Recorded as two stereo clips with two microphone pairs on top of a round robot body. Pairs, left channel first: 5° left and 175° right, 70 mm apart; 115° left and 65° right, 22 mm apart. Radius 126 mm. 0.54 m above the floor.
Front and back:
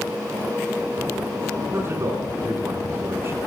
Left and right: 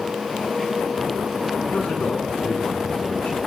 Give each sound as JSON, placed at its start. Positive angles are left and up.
{"t": 1.7, "sound": "a man speaking", "azimuth_deg": 130, "distance_m": 9.5}